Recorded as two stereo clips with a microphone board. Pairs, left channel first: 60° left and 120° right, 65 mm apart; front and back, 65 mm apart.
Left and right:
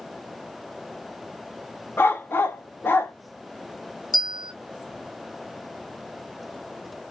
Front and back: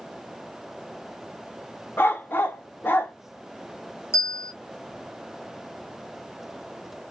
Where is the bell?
45° left, 3 m.